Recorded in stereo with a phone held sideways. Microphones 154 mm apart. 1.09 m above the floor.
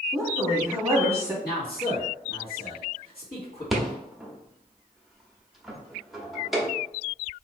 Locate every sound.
0.1 s a woman speaking: 10° right (ahead or behind), 0.8 m
1.4 s a man speaking: 80° left, 1.8 m
3.7 s a rattle: centre (ahead or behind), 0.7 m